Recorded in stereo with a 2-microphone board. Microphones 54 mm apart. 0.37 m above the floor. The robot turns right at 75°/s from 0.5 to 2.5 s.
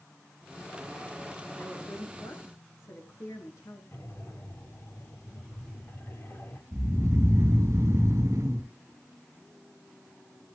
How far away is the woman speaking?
About 6.5 m.